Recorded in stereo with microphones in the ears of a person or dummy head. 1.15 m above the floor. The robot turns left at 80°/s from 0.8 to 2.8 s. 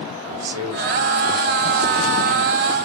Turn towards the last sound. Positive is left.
turn(degrees=100)